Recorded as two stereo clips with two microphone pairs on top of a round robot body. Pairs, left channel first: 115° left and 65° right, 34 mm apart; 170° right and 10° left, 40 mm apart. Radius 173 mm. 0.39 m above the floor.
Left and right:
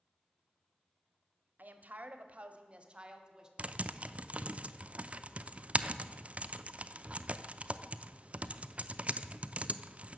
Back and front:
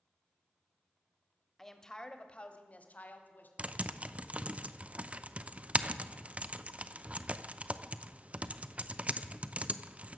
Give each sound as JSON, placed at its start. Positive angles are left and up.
{"t": 1.6, "sound": "a woman speaking", "azimuth_deg": -85, "distance_m": 1.3}
{"t": 3.6, "sound": "typing on a keyboard", "azimuth_deg": -20, "distance_m": 0.7}